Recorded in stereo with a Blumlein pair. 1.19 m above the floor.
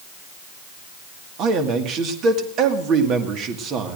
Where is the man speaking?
35° right, 1.9 m.